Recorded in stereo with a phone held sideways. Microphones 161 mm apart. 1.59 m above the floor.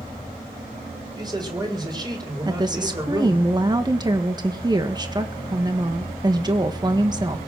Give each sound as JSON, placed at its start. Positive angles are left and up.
{"t": 1.1, "sound": "a man speaking", "side_deg": -25, "distance_m": 4.5}
{"t": 2.5, "sound": "a woman speaking", "side_deg": -25, "distance_m": 1.6}